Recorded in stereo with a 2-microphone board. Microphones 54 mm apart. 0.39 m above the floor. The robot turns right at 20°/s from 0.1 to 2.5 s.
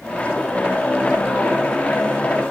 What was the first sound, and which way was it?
Only background noise.